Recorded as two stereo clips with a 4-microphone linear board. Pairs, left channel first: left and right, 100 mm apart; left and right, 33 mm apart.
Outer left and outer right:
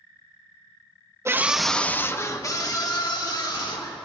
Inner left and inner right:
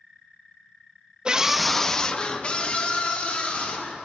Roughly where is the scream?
Right.